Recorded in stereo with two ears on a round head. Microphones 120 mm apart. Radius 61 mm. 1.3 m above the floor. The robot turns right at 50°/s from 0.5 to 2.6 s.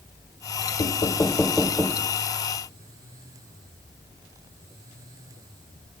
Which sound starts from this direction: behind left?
Knocking, at 0.8 s.